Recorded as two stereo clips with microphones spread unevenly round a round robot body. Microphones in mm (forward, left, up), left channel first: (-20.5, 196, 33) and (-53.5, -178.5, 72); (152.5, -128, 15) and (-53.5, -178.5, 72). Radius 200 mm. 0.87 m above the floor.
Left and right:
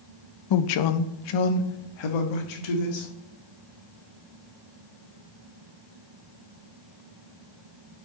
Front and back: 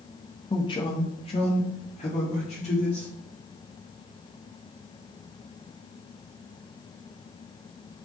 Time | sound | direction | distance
0.5 | a man speaking | 75° left | 0.6 m